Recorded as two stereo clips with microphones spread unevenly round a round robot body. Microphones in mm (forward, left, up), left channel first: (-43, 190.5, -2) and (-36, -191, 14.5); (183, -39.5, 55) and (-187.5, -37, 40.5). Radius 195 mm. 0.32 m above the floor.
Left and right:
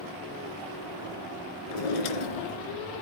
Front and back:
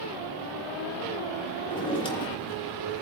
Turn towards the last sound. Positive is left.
turn(degrees=80)